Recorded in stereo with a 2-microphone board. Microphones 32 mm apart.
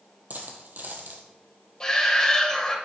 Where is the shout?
25° left (ahead or behind), 1.3 m.